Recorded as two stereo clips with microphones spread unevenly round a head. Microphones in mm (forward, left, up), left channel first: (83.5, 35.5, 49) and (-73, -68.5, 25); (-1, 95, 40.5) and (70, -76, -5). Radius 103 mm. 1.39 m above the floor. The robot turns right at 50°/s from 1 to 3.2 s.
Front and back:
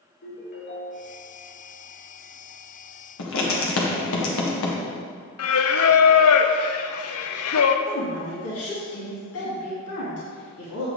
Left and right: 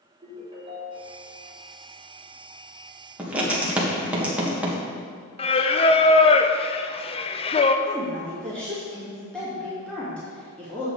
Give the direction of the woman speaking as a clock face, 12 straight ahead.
11 o'clock.